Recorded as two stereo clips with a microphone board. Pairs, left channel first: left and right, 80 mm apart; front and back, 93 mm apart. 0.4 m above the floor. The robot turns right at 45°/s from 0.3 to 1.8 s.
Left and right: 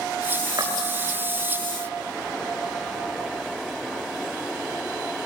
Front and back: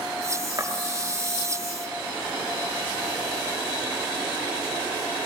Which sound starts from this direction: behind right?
Footsteps, at 0.6 s.